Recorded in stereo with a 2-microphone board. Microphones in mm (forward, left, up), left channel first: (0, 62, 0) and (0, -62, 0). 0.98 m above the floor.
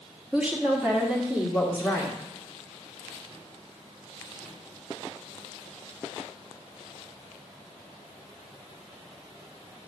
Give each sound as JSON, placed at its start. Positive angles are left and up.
{"t": 0.3, "sound": "a woman speaking", "side_deg": -10, "distance_m": 1.2}